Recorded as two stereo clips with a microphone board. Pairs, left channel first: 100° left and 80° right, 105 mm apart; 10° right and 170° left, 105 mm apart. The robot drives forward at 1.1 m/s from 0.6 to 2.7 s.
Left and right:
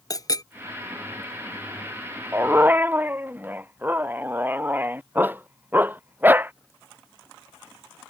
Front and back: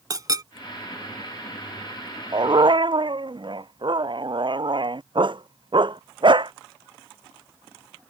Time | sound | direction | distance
0.1 | a clink | 135° left | ?
2.3 | a dog barking | 145° right | ?